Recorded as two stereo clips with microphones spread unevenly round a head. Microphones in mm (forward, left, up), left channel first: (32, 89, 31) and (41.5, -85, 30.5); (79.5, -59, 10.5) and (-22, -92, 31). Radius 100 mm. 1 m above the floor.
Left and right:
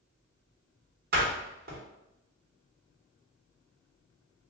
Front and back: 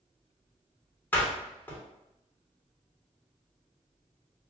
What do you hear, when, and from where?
1.1 s a door slam: 55° right, 1.2 m